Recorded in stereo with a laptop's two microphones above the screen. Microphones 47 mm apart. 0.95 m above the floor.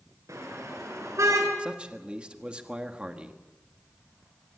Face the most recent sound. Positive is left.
turn(degrees=-20)  # may be behind; listen again after turning